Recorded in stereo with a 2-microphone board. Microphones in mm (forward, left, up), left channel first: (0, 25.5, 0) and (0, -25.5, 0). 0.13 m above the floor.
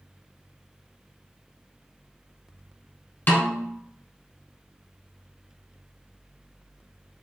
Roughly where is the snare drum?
Left.